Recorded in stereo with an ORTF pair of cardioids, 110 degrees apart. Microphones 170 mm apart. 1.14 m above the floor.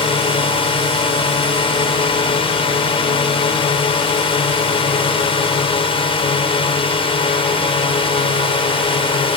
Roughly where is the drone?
Ahead left.